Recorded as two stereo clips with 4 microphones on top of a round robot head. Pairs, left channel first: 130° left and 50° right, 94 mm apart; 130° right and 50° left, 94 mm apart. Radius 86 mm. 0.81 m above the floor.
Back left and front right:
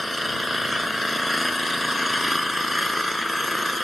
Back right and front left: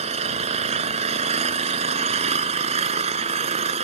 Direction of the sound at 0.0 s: 40° left.